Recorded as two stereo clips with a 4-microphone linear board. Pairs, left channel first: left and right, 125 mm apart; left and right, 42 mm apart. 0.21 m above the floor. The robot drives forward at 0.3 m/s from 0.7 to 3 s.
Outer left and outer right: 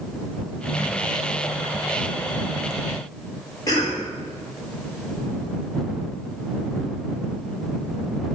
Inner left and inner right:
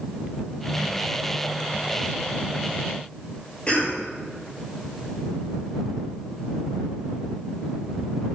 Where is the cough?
30° left (ahead or behind), 4 m.